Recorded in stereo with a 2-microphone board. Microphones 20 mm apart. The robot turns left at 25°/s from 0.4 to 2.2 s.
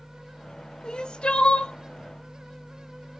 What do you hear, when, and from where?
0.8 s crying: 50° left (ahead or behind), 0.6 m; by 1.7 s 70° left (ahead or behind), 0.6 m